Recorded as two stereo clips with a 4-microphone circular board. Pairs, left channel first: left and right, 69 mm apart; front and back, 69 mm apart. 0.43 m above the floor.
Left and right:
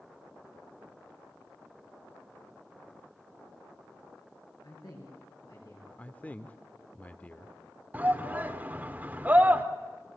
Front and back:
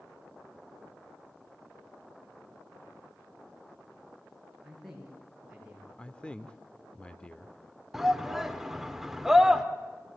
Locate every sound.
4.6 s a man speaking: 95° left, 8 m; by 5.9 s 100° left, 9.5 m
6.0 s a man speaking: 55° left, 0.8 m
7.9 s a shout: 100° right, 1.3 m